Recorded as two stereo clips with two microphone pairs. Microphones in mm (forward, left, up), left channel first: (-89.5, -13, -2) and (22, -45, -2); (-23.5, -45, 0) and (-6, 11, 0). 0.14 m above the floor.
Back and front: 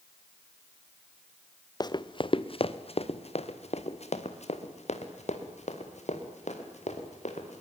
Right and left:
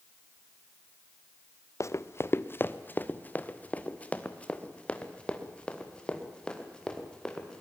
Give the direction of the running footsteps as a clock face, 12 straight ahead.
5 o'clock.